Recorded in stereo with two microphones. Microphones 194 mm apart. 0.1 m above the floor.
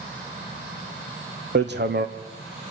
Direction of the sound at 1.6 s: 60° right (ahead or behind).